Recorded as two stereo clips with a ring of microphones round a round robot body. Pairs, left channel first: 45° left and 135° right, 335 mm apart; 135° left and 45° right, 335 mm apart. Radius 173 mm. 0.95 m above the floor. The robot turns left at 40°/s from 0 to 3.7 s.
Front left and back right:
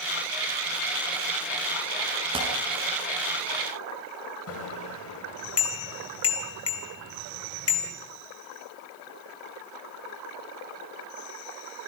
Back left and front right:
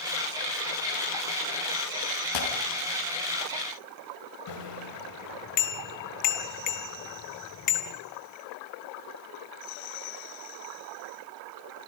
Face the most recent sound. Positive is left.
turn(degrees=95)